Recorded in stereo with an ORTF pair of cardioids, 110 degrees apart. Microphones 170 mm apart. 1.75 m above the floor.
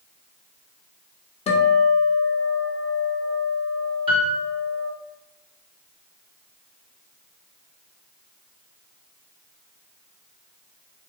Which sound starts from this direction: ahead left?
A guitar, at 1.5 s.